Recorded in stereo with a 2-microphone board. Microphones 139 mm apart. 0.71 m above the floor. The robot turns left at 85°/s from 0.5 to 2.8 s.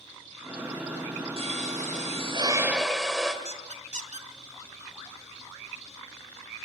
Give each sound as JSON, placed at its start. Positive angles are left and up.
{"t": 1.4, "sound": "a pop", "azimuth_deg": -55, "distance_m": 3.0}
{"t": 3.5, "sound": "a squeak", "side_deg": -65, "distance_m": 1.4}